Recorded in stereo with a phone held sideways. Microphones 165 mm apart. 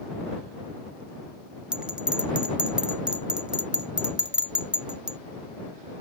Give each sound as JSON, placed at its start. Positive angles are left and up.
{"t": 1.7, "sound": "a bell", "side_deg": -5}